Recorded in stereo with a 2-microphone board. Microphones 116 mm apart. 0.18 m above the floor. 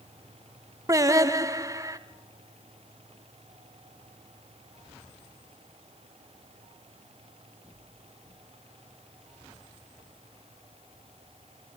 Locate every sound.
0.9 s singing: 30° right (ahead or behind), 0.9 m